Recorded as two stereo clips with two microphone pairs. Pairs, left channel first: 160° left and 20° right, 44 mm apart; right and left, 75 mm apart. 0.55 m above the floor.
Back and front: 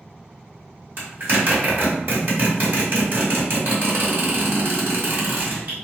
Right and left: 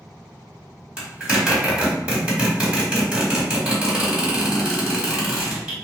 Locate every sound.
1.0 s a zipper: 20° left, 1.4 m